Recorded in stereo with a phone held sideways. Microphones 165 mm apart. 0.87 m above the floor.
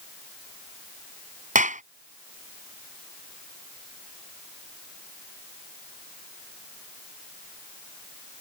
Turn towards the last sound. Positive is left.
turn(degrees=-50)  # may be behind; listen again after turning